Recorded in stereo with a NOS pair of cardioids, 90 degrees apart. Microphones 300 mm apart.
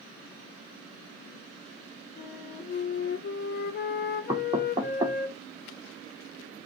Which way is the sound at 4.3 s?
15° right.